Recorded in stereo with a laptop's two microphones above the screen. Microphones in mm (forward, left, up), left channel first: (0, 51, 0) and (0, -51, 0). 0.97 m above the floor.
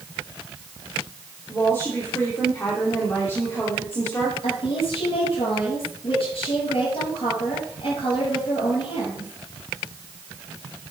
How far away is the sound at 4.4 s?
About 6.5 m.